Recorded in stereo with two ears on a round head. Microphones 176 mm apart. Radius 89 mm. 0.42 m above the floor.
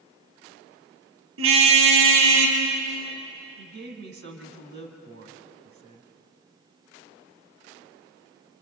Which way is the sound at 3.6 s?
60° right (ahead or behind).